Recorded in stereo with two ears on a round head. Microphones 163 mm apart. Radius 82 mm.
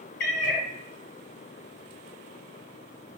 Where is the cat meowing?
50° left (ahead or behind), 0.7 m.